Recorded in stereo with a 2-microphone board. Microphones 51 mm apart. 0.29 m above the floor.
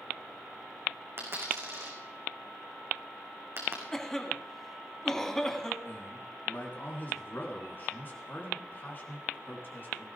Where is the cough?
10° left (ahead or behind), 2 m.